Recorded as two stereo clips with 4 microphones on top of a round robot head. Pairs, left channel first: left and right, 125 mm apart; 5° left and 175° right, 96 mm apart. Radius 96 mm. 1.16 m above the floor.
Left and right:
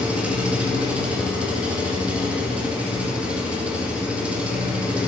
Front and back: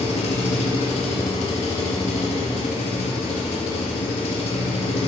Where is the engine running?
10° right, 1.5 m.